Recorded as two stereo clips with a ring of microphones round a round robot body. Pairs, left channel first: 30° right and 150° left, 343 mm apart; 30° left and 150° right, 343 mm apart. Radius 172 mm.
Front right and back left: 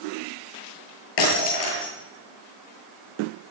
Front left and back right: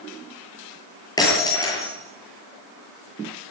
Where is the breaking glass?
50° right, 9 m.